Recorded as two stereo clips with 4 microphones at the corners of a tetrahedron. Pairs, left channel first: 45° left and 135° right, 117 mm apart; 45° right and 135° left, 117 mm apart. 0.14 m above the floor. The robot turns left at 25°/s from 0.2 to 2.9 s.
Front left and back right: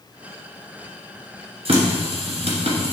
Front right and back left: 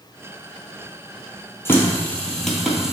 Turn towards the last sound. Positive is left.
turn(degrees=-140)